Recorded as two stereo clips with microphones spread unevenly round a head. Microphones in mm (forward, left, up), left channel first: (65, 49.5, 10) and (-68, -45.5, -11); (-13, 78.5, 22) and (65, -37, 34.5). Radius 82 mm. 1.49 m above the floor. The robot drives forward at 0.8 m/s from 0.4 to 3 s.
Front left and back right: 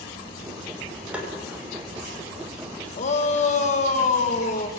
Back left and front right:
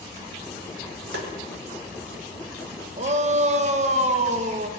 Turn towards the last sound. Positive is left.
turn(degrees=-15)